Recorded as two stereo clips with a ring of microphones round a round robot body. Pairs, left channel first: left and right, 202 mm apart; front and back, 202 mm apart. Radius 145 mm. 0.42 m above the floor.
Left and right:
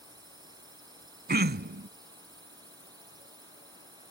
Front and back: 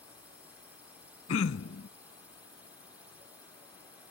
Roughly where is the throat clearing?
Ahead right.